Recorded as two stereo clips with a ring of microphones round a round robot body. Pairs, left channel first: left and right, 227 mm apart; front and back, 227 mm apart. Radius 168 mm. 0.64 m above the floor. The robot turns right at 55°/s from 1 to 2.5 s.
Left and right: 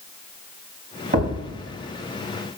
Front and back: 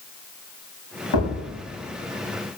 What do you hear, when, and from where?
1.1 s a thud: 40° right, 5.5 m; by 1.4 s 25° right, 5.5 m